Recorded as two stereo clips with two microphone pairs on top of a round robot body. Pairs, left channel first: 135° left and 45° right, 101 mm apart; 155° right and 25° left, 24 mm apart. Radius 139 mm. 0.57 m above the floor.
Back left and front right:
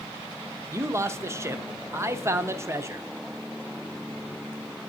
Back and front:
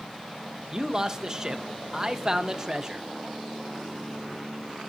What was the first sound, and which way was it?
A man speaking, 25° right.